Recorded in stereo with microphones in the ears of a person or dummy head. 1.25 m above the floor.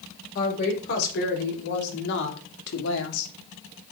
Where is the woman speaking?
50° left (ahead or behind), 4.5 m; by 3.3 s 75° left (ahead or behind), 2 m.